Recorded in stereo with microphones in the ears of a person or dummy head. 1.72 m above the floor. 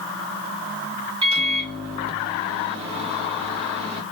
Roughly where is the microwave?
Right.